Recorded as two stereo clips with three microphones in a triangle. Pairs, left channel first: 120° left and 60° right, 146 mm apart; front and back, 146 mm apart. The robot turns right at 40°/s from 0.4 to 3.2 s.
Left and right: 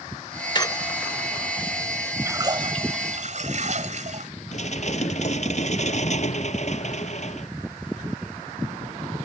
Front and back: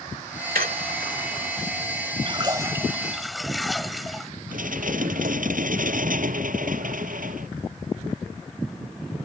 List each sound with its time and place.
0.6 s a squeak: straight behind; by 1.1 s 160° right
2.2 s a splash: 130° right; by 4.3 s 90° right
4.5 s dishes clattering: 160° left